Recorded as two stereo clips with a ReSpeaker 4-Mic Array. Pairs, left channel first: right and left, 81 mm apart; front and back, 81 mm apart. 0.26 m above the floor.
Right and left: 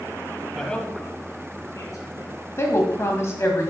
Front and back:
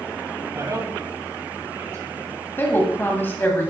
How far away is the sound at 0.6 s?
About 1.2 m.